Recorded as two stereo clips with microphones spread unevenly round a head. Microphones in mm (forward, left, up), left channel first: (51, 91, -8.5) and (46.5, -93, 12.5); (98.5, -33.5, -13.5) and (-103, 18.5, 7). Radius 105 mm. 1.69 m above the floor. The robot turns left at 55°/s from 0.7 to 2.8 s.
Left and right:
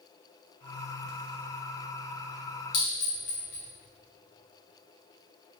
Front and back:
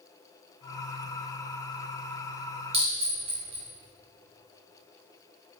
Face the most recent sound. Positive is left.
turn(degrees=110)